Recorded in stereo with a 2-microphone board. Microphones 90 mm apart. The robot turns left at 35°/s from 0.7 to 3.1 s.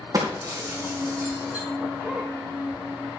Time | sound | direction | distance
0.1 | breaking glass | 45° right (ahead or behind) | 3 m